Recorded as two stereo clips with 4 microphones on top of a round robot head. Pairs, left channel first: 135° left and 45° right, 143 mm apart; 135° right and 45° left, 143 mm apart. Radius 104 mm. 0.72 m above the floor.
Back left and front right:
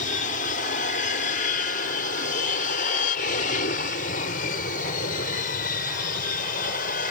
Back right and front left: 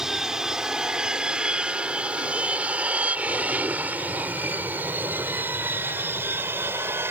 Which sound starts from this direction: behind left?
An aircraft, at 0.0 s.